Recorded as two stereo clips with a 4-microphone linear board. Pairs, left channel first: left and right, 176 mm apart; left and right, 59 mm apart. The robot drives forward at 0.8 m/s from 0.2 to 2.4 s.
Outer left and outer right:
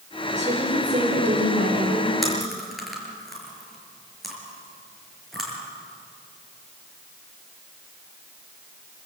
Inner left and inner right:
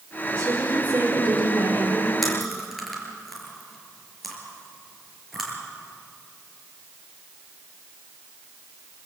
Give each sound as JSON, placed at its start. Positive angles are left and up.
{"t": 0.3, "sound": "a woman speaking", "side_deg": -45, "distance_m": 5.5}
{"t": 2.2, "sound": "chewing", "side_deg": 0, "distance_m": 5.5}